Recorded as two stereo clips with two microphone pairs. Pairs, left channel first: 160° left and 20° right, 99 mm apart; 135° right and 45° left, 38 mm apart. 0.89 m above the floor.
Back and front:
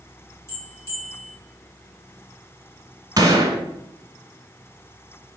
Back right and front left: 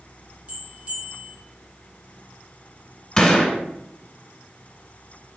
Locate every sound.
0.5 s a bell: 100° left, 1.6 m
3.2 s a gunshot: 65° right, 1.2 m